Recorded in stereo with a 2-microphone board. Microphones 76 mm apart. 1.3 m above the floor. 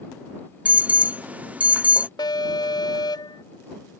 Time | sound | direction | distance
0.7 | an alarm | 20° right (ahead or behind) | ?
2.2 | an alarm | 85° left | ?